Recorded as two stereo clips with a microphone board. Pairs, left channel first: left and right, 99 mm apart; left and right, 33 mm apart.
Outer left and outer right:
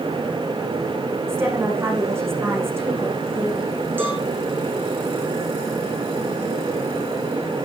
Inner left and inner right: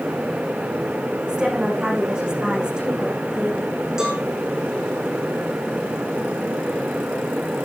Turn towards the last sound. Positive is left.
turn(degrees=-20)  # may be behind; listen again after turning